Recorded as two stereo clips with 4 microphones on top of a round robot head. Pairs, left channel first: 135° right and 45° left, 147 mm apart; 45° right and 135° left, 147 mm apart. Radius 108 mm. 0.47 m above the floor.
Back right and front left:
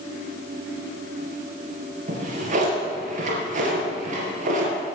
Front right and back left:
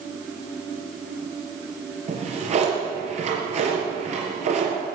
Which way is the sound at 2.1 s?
85° left.